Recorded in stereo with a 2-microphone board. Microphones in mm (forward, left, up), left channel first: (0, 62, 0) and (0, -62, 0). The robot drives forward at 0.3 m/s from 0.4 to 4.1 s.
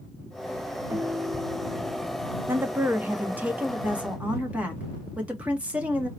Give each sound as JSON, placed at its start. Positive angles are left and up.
{"t": 0.9, "sound": "a guitar", "side_deg": -15, "distance_m": 1.1}
{"t": 2.5, "sound": "a woman speaking", "side_deg": -20, "distance_m": 0.6}